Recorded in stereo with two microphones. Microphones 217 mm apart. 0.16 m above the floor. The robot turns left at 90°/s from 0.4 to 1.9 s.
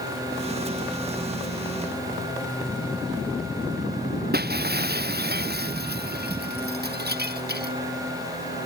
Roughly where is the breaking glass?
Right.